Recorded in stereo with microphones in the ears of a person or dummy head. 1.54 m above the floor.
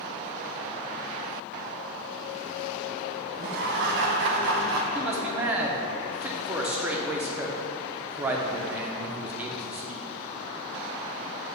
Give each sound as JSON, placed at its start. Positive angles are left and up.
{"t": 3.4, "sound": "laughter", "side_deg": -65, "distance_m": 1.0}
{"t": 5.0, "sound": "a man speaking", "side_deg": -15, "distance_m": 0.6}